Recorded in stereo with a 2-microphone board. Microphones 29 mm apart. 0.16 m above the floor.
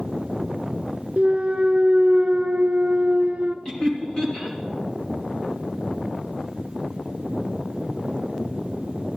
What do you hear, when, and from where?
1.2 s a clunk: 50° right (ahead or behind), 0.7 m
3.6 s laughter: 35° left (ahead or behind), 2 m